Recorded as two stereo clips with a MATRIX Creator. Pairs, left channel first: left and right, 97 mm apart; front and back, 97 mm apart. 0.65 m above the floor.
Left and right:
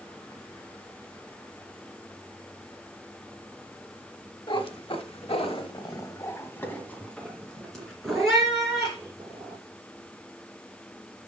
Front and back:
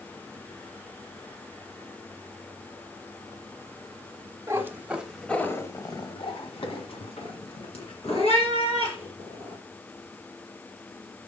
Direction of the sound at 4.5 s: 120° left.